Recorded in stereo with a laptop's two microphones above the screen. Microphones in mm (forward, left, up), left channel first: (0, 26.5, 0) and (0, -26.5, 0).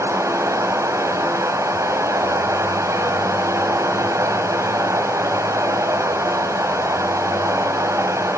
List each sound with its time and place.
0.0 s running water: 90° right, 4.5 m